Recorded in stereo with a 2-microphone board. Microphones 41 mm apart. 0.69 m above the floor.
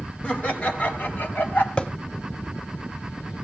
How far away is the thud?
About 1.2 m.